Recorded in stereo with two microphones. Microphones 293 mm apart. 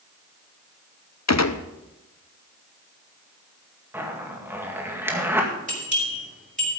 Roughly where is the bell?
Right.